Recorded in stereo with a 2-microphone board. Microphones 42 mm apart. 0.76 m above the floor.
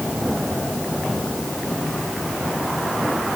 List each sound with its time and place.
Only background noise.